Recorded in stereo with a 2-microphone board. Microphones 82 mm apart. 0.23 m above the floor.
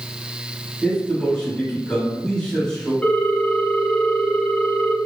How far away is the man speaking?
About 1.6 m.